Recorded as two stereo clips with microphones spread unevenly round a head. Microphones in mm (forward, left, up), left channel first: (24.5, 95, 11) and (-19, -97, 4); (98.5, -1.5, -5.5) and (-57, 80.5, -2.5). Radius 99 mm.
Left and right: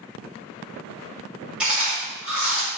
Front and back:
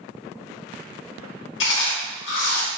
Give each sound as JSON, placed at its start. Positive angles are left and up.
{"t": 1.6, "sound": "chewing", "azimuth_deg": -15, "distance_m": 1.0}